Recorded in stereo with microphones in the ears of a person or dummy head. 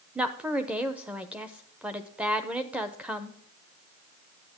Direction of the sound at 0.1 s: 10° right (ahead or behind).